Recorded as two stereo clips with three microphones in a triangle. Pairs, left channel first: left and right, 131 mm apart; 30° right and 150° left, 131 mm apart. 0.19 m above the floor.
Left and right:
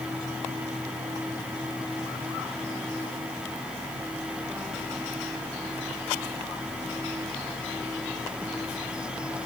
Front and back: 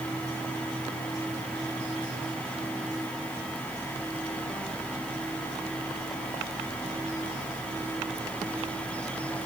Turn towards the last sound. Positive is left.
No sound to turn to.